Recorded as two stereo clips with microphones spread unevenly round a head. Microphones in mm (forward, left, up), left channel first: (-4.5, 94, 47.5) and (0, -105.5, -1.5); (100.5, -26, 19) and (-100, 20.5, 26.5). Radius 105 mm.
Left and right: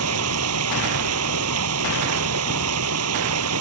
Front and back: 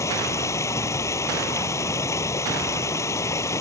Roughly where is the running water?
Right.